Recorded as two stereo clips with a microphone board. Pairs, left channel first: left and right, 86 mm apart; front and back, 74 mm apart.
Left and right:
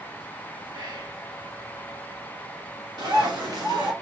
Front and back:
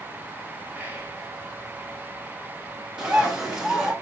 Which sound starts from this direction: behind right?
Whispering, at 0.7 s.